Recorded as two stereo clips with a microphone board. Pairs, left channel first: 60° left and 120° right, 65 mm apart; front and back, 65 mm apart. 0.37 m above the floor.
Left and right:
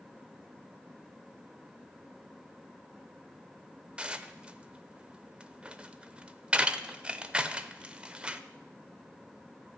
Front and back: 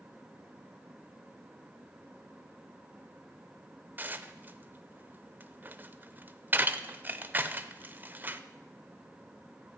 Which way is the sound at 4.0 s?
175° right.